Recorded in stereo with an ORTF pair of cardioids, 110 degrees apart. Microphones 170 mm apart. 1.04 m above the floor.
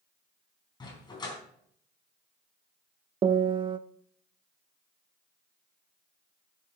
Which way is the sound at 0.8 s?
25° left.